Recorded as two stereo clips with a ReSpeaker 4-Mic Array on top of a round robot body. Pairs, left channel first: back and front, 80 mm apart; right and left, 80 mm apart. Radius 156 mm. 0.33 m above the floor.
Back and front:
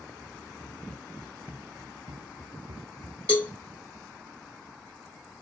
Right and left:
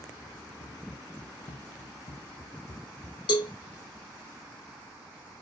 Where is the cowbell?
105° right, 1.0 m.